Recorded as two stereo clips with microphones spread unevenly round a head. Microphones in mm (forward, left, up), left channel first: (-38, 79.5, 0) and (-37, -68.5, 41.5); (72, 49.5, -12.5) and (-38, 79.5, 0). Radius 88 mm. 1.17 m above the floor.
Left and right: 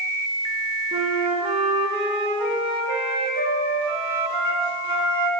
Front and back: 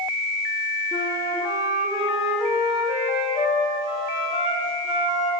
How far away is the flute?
About 2.0 m.